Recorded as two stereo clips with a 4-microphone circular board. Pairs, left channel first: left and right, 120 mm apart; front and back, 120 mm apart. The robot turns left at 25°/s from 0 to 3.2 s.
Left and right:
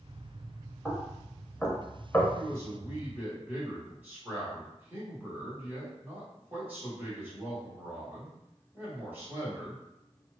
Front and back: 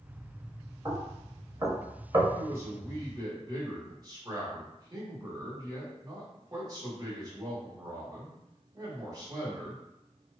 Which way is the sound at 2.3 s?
130° right.